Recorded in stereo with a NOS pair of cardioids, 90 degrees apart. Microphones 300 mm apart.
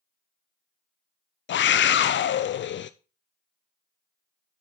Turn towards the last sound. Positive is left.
turn(degrees=40)